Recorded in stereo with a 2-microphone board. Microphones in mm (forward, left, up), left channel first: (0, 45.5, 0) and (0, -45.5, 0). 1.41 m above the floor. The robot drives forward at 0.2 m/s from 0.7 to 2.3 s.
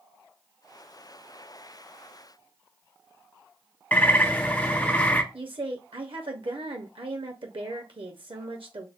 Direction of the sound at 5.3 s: 70° right (ahead or behind).